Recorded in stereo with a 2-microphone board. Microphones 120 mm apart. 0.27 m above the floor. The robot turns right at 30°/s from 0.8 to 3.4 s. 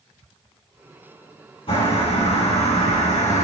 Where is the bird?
55° left, 4.5 m; by 3.4 s 105° left, 4.5 m.